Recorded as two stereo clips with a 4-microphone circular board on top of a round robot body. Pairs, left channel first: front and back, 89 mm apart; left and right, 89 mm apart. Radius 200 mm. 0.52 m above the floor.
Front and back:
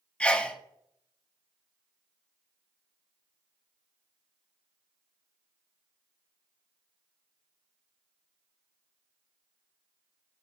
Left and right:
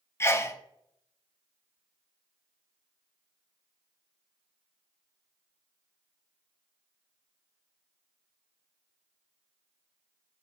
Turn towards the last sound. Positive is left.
turn(degrees=65)